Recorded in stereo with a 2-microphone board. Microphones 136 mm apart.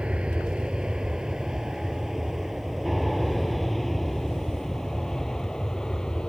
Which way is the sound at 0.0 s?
10° right (ahead or behind).